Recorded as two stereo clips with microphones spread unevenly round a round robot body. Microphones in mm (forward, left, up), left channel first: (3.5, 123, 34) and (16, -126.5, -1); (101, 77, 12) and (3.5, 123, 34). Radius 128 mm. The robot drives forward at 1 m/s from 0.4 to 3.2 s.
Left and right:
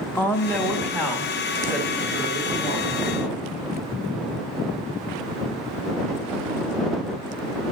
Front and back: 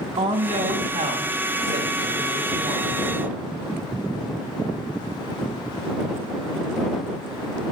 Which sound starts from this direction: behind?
A woman speaking, at 0.2 s.